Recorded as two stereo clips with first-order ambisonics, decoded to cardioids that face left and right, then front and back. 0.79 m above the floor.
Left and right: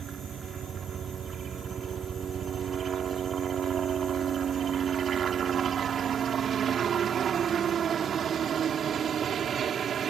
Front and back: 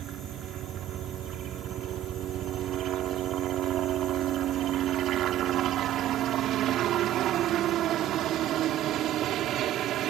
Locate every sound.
0.0 s a helicopter: 145° right